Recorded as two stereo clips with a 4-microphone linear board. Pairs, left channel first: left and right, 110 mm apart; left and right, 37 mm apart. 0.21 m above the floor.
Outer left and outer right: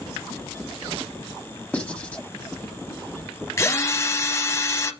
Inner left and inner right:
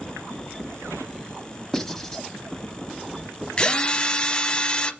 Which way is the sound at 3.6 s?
30° left (ahead or behind).